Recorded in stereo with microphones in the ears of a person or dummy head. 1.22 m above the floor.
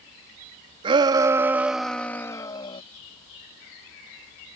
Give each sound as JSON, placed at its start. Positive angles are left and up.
{"t": 0.8, "sound": "a shout", "side_deg": -30}